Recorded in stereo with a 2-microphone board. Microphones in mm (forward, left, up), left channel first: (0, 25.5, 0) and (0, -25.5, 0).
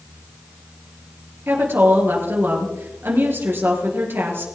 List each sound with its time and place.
1.5 s a woman speaking: 45° right (ahead or behind), 3.5 m